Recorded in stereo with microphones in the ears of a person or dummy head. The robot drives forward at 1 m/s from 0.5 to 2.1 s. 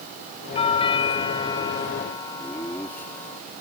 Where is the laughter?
15° left (ahead or behind).